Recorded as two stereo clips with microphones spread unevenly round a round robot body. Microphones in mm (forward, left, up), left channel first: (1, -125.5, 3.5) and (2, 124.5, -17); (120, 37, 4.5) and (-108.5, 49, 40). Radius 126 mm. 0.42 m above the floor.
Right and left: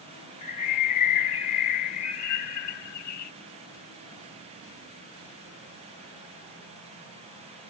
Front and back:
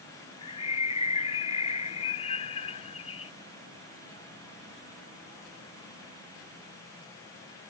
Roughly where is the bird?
Right.